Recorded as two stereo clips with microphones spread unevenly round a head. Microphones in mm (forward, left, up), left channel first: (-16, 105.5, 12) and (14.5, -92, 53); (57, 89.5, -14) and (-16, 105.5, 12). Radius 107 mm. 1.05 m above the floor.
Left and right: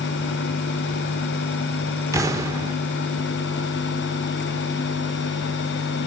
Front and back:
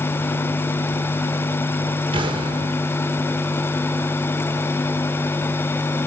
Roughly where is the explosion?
Behind.